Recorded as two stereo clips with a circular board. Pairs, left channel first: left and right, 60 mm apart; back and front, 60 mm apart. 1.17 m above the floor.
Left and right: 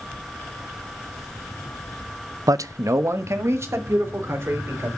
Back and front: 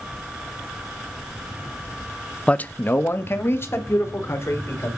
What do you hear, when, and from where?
2.5 s a man speaking: 110° right, 0.6 m; by 4.9 s 135° right, 4 m